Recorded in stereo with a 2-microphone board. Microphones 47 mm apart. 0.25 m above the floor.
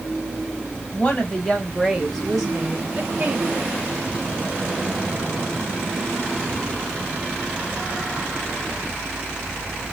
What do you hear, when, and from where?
0.9 s a woman speaking: 30° left (ahead or behind), 1.3 m; by 3.6 s 30° right (ahead or behind), 1.3 m